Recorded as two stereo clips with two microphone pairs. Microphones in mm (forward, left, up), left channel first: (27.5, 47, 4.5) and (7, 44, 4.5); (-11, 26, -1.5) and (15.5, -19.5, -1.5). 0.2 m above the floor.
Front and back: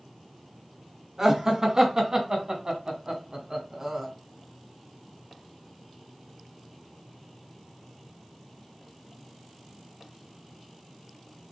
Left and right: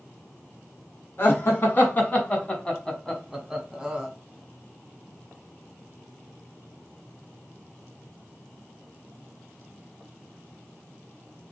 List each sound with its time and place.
1.2 s laughter: 140° left, 1.7 m; by 4.1 s 125° right, 1.4 m